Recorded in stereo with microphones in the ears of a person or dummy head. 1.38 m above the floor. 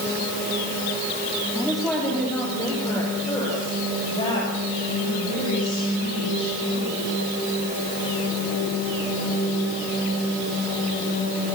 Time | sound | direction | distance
1.6 | a woman speaking | centre (ahead or behind) | 3.5 m